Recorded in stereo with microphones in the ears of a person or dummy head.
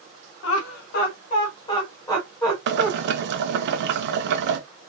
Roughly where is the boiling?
Right.